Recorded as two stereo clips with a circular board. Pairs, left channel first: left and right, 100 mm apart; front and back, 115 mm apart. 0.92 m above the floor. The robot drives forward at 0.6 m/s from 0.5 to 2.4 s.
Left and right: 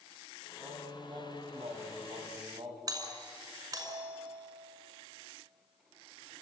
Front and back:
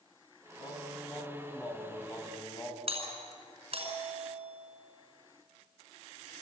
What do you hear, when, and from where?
0.6 s singing: 55° right, 4 m; by 2.8 s 70° right, 3.5 m
2.9 s a doorbell: 140° right, 5.5 m